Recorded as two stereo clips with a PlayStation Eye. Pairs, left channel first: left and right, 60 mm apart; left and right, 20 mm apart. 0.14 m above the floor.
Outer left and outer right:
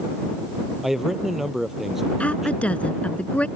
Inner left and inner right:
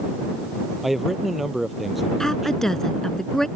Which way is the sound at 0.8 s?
5° right (ahead or behind).